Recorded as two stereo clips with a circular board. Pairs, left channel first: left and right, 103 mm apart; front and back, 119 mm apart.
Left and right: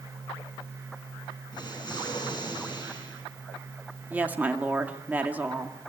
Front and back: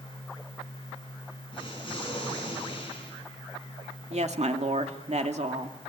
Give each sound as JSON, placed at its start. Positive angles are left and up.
{"t": 1.5, "sound": "an explosion", "azimuth_deg": 45, "distance_m": 5.5}
{"t": 4.1, "sound": "a woman speaking", "azimuth_deg": -165, "distance_m": 2.0}